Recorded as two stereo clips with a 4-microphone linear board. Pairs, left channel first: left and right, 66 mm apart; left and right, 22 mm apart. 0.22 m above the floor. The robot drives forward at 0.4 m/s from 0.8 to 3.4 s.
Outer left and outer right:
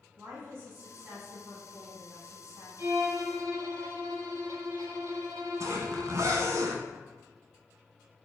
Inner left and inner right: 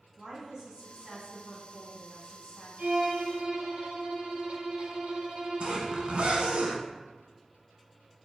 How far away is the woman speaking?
About 1.6 m.